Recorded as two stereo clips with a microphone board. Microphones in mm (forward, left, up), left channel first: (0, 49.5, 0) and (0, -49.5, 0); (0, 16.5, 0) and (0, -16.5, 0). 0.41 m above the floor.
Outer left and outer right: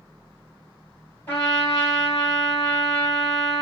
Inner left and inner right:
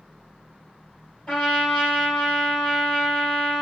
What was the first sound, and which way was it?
A trumpet, 25° left (ahead or behind).